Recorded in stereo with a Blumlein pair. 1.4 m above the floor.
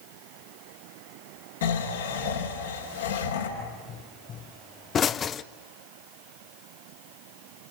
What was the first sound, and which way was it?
Snoring, 65° left.